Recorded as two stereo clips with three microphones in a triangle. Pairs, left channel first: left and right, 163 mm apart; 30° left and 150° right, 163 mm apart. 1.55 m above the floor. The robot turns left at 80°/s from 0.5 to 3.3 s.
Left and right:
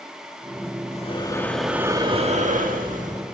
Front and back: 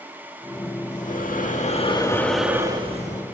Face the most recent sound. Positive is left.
turn(degrees=-135)